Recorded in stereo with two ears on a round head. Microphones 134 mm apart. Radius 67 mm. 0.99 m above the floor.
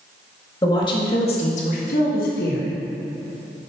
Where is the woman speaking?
25° left (ahead or behind), 1.7 m; by 2.7 s 70° left (ahead or behind), 1.6 m.